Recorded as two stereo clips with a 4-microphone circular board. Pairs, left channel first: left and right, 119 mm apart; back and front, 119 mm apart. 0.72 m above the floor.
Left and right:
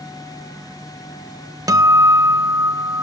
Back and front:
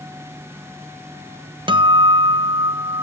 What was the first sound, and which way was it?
A guitar, 35° right.